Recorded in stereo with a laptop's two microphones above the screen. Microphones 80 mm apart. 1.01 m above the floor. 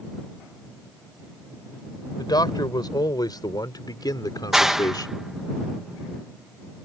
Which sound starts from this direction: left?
A man speaking, at 2.2 s.